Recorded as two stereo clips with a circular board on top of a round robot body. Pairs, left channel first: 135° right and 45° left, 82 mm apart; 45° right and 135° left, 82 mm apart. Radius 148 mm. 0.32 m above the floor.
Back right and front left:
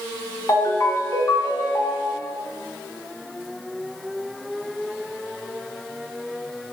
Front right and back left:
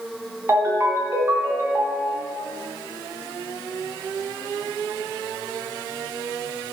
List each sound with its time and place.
0.5 s a ringtone: straight behind, 1.0 m